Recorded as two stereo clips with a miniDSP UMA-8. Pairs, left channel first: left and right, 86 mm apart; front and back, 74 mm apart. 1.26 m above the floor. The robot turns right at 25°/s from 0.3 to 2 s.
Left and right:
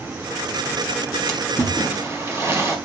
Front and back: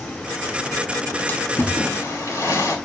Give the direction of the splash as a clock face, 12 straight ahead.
2 o'clock.